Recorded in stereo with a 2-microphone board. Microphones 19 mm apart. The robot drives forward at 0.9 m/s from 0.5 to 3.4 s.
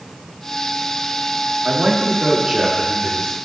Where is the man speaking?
60° right (ahead or behind), 1.4 m; by 3.4 s 30° right (ahead or behind), 2.5 m.